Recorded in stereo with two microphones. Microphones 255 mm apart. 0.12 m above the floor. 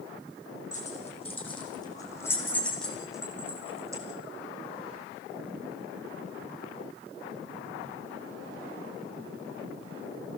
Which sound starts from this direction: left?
Keys jangling, at 0.7 s.